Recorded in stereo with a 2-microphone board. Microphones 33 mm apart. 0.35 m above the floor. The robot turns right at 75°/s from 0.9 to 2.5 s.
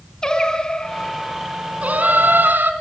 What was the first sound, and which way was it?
Singing, 155° left.